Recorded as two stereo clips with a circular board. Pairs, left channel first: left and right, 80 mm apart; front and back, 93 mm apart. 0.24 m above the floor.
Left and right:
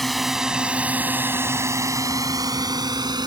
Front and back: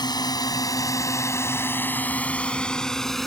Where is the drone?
Straight ahead; by 3.3 s 85° right.